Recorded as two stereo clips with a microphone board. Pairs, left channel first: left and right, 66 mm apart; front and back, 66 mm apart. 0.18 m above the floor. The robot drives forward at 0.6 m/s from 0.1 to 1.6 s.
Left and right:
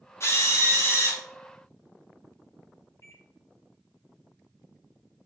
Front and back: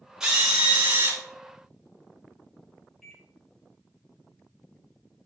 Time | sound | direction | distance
0.2 | a drill | 105° left | 1.6 m
3.0 | a microwave | 85° left | 1.9 m